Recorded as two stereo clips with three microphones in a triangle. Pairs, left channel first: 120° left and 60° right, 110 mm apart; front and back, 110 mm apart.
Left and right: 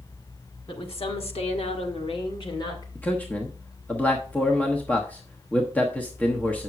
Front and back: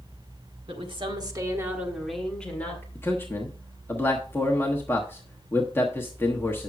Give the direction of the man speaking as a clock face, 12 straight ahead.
10 o'clock.